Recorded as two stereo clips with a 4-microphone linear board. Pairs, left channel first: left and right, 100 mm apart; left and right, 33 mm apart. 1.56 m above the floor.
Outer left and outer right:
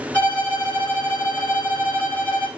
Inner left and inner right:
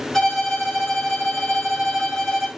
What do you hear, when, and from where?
0.1 s a violin: 15° left (ahead or behind), 2 m